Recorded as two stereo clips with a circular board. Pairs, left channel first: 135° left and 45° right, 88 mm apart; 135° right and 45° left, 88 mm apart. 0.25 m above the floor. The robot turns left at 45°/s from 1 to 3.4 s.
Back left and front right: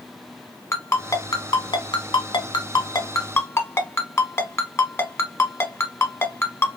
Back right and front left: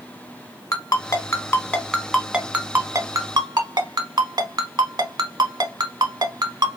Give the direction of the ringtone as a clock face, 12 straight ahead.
6 o'clock.